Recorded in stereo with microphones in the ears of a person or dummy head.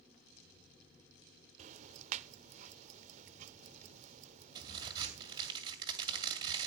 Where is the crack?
20° right (ahead or behind), 2.5 m.